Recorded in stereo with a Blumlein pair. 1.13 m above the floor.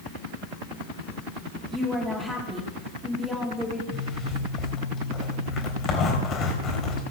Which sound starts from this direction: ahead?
A woman speaking, at 1.7 s.